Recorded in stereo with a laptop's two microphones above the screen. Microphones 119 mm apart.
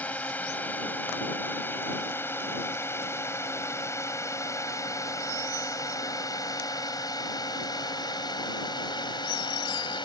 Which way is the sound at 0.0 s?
10° left (ahead or behind).